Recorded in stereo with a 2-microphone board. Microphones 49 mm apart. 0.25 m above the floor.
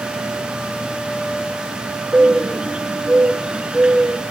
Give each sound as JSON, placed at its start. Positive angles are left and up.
{"t": 2.1, "sound": "a bird", "side_deg": -20, "distance_m": 0.9}